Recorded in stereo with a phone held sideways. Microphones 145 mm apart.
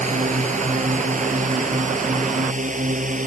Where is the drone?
55° right (ahead or behind); by 3.3 s 60° right (ahead or behind).